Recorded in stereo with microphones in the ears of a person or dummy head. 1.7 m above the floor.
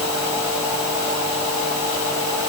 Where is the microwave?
I don't hear a microwave.